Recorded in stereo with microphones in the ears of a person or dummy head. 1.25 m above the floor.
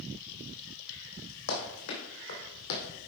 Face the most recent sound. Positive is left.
turn(degrees=65)  # may be behind; listen again after turning